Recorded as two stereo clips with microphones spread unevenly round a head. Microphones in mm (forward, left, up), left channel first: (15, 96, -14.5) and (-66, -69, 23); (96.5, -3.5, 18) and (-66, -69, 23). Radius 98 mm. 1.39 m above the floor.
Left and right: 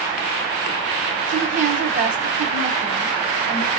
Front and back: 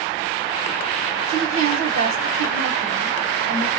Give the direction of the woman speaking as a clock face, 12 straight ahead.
5 o'clock.